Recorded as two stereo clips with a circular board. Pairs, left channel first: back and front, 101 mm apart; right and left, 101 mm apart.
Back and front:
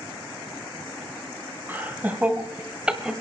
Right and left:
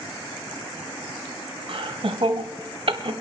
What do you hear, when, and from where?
1.7 s laughter: 70° left, 3 m; by 3.1 s 80° left, 1.8 m